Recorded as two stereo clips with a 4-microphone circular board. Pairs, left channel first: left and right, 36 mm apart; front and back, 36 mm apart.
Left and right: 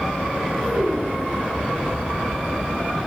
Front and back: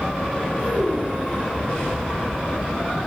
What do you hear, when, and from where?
0.6 s a child speaking: 140° right, 7 m